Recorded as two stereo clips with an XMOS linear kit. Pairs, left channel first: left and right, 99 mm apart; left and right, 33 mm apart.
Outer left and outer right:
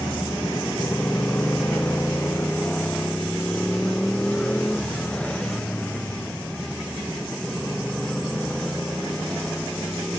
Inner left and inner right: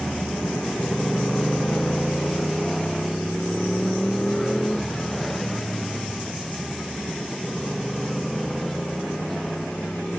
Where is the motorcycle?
30° left (ahead or behind); by 10.2 s 10° left (ahead or behind).